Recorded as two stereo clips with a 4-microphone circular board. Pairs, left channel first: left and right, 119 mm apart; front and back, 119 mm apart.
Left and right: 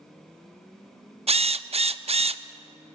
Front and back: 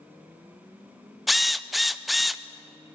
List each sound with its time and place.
1.3 s a drill: 90° right, 0.6 m